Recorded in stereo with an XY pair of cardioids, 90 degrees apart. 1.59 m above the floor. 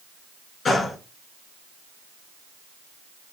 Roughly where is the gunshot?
Ahead left.